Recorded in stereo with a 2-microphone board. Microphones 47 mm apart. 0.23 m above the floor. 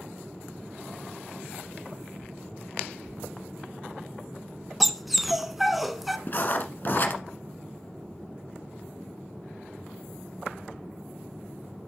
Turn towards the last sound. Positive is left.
turn(degrees=45)  # may be behind; listen again after turning